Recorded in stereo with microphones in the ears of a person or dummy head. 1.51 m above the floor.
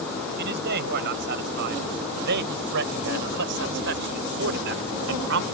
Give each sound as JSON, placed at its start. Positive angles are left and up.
{"t": 0.4, "sound": "a man speaking", "side_deg": -60}